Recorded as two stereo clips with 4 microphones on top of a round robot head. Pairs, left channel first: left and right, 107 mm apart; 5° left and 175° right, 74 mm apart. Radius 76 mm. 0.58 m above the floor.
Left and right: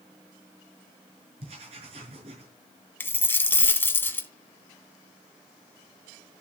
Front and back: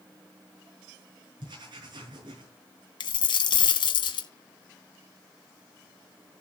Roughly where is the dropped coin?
Ahead.